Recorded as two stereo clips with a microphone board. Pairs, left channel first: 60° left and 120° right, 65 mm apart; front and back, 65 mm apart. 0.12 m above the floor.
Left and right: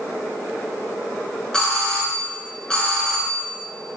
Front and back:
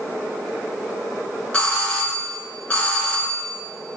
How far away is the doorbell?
About 1.5 m.